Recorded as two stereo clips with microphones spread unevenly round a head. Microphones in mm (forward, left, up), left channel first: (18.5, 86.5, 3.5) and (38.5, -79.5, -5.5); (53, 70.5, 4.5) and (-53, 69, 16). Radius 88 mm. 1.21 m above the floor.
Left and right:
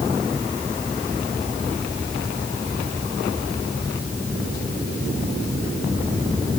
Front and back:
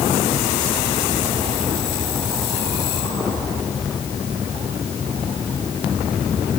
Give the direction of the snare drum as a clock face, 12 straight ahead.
I don't hear a snare drum.